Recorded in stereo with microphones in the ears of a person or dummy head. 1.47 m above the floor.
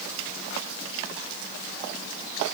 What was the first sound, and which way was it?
Only background noise.